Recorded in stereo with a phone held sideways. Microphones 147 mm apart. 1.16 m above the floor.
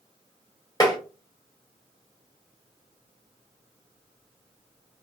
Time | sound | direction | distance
0.8 | tapping | 25° left (ahead or behind) | 0.7 m